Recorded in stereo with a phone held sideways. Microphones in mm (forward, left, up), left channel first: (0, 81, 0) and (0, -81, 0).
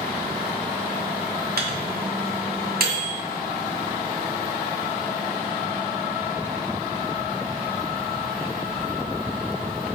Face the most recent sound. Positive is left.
turn(degrees=-70)  # may be behind; listen again after turning